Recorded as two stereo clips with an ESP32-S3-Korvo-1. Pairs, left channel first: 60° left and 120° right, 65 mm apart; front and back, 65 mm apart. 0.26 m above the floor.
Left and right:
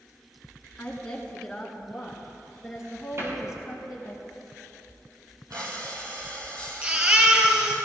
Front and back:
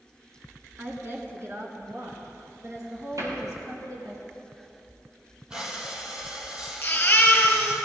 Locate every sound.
0.8 s a woman speaking: 130° left, 3 m; by 4.2 s 165° left, 4.5 m
3.2 s a cupboard door: 165° right, 6.5 m
5.5 s breathing: 105° right, 3 m
6.8 s a baby crying: 60° right, 3 m